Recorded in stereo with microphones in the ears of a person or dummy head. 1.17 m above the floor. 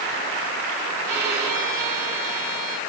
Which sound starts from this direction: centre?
A violin, at 1.1 s.